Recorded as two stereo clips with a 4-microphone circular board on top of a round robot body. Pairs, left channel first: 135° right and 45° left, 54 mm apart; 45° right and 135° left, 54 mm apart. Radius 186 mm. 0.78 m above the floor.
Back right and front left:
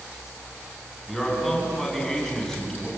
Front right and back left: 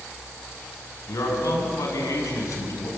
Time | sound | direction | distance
1.1 | a man speaking | 50° right | 8 m